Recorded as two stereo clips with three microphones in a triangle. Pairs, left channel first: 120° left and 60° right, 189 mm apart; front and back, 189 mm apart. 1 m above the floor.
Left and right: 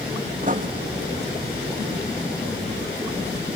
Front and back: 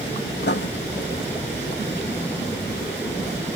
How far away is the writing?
About 0.8 m.